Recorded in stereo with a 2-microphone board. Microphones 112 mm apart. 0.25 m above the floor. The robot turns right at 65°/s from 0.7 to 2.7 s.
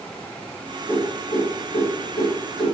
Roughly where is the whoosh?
Centre.